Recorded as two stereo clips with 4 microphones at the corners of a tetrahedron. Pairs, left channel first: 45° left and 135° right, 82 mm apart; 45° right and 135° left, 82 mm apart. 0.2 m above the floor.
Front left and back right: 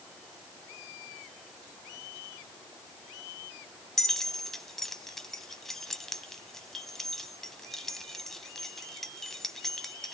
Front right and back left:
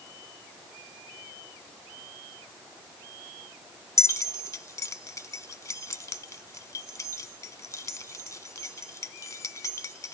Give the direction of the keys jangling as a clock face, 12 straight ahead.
1 o'clock.